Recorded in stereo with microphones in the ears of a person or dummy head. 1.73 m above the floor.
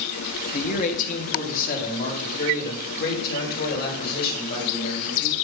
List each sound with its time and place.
0.5 s a man speaking: 40° left (ahead or behind), 1.5 m; by 5.3 s 55° left (ahead or behind), 5 m